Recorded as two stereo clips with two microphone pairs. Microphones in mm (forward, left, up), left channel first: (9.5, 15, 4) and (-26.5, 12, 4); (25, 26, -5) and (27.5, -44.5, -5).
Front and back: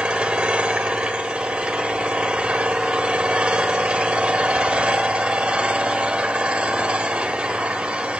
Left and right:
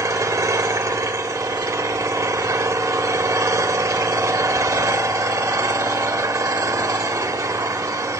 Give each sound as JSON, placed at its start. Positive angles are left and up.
{"t": 0.0, "sound": "an engine running", "azimuth_deg": -115, "distance_m": 1.6}